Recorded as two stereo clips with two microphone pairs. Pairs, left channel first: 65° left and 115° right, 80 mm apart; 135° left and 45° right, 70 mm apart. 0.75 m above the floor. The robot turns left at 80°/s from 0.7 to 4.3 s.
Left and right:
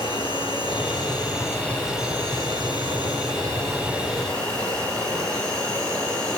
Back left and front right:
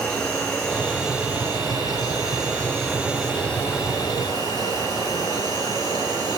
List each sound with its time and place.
0.0 s an insect: 70° left, 9.5 m; by 6.4 s 145° left, 9.5 m